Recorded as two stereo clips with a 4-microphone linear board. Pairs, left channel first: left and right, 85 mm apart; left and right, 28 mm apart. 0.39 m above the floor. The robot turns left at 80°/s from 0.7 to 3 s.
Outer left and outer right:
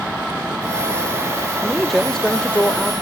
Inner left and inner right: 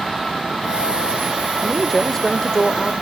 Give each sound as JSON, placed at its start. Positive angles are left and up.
{"t": 1.6, "sound": "a man speaking", "side_deg": -10, "distance_m": 0.8}